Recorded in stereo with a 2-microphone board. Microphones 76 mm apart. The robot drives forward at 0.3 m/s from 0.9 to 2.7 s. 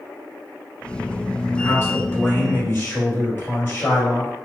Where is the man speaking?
35° left (ahead or behind), 1.3 m; by 4.3 s 30° left (ahead or behind), 1.5 m.